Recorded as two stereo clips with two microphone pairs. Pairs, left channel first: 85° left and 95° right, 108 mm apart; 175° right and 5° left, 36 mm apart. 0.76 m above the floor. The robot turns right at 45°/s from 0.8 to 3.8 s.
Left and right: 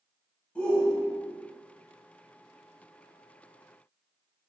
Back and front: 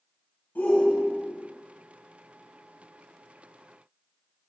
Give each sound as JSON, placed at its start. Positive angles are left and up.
{"t": 0.6, "sound": "a shout", "azimuth_deg": 160, "distance_m": 4.0}